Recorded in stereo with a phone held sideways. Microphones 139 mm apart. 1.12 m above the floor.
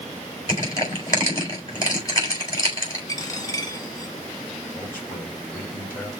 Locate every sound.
0.5 s crushing: 25° left (ahead or behind), 4 m
3.1 s a dropped coin: 25° left (ahead or behind), 1.6 m
4.7 s a man speaking: 15° left (ahead or behind), 4.5 m